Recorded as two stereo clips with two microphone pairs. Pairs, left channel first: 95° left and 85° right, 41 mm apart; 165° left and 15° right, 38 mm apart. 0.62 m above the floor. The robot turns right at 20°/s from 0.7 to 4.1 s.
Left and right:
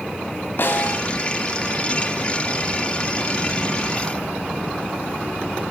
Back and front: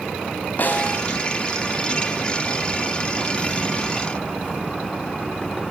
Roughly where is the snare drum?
Behind left.